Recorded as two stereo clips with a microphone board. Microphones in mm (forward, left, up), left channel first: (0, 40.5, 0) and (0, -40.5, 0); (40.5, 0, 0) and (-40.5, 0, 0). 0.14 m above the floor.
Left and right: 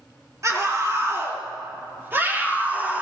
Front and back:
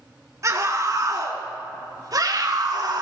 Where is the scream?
135° right, 4 m; by 3.0 s 155° right, 4 m.